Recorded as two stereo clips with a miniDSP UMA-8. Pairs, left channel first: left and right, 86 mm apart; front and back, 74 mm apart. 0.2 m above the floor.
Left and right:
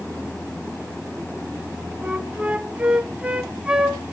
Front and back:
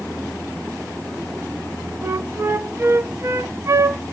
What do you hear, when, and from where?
2.0 s a flute: 160° right, 0.9 m